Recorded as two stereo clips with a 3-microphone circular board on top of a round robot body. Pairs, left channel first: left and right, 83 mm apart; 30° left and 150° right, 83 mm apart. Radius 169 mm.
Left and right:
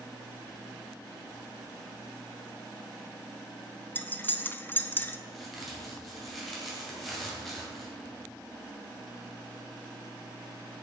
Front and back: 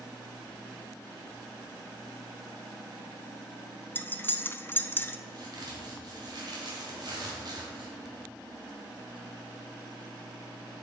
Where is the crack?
Straight behind, 2 m.